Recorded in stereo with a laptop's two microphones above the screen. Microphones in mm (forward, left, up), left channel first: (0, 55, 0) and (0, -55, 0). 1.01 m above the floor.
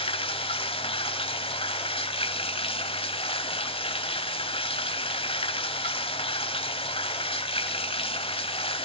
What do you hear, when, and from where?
0.0 s running water: 55° left (ahead or behind), 1.2 m